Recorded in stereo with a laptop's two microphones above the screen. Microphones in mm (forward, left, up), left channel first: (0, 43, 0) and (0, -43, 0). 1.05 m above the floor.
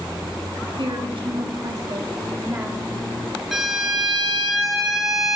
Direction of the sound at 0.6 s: 75° right (ahead or behind).